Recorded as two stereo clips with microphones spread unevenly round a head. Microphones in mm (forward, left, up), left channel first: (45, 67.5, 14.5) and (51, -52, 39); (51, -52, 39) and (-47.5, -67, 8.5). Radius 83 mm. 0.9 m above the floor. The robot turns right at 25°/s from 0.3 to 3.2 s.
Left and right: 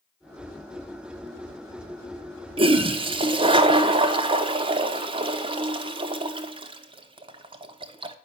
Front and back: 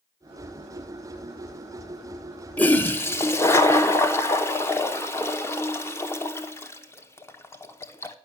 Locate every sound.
2.6 s a toilet flushing: 80° right, 1.0 m; by 8.2 s 65° right, 1.0 m